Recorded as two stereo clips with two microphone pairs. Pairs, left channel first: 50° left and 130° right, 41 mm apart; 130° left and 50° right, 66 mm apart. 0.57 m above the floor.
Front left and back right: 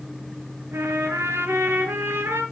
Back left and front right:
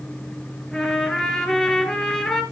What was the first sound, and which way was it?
A trumpet, 155° right.